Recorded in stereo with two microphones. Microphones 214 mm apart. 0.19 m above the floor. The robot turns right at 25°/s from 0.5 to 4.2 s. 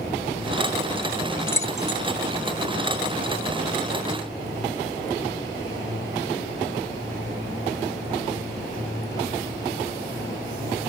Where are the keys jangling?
10° left (ahead or behind); by 2.0 s 20° left (ahead or behind).